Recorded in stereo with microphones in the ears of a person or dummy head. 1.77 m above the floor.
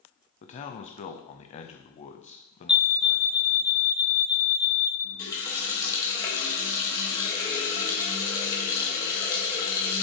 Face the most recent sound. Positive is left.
turn(degrees=20)  # may be behind; listen again after turning